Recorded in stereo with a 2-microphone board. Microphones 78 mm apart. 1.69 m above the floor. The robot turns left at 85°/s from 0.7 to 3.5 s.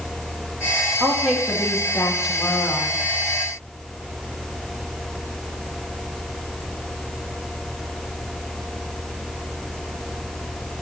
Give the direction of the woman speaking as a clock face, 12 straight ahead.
5 o'clock.